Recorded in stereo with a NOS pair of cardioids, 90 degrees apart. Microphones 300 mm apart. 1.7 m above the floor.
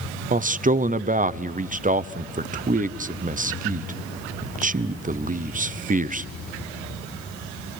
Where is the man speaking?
25° right, 0.9 m.